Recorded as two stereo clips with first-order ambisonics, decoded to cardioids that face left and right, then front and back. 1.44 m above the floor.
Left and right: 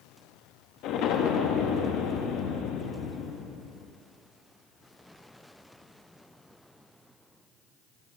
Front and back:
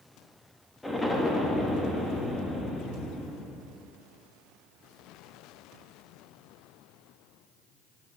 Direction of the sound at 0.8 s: 80° left.